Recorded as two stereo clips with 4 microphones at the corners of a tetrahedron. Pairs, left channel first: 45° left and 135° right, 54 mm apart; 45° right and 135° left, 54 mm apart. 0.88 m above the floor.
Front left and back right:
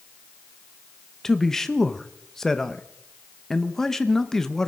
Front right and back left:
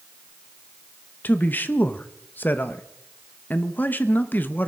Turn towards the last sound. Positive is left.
turn(degrees=-25)